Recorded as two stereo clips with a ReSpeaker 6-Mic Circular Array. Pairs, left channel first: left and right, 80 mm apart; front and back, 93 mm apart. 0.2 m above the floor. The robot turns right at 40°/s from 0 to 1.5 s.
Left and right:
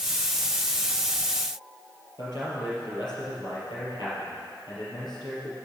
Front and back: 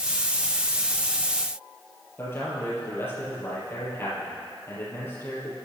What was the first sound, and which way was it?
A man speaking, 65° left.